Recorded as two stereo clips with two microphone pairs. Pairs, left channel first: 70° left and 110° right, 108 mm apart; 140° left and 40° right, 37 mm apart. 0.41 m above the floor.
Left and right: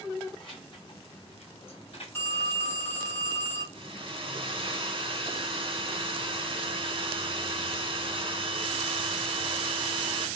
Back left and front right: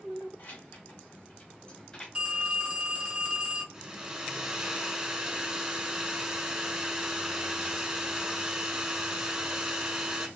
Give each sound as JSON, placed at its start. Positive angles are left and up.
{"t": 0.4, "sound": "keys jangling", "azimuth_deg": 110, "distance_m": 1.9}
{"t": 2.1, "sound": "a phone ringing", "azimuth_deg": 15, "distance_m": 0.9}
{"t": 3.7, "sound": "a hair dryer", "azimuth_deg": -110, "distance_m": 1.1}